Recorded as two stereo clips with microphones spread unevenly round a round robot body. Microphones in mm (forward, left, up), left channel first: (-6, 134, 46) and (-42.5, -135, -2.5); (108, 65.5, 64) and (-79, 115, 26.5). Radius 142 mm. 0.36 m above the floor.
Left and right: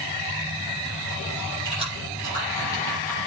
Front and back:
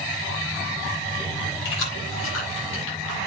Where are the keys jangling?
5° left, 9.5 m; by 3.3 s straight ahead, 8 m.